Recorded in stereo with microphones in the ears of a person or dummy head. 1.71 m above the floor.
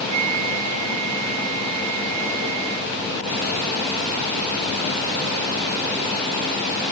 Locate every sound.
0.1 s a flute: 35° right (ahead or behind)